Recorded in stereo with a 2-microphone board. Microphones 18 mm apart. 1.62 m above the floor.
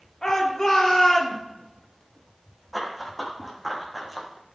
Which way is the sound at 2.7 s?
5° left (ahead or behind).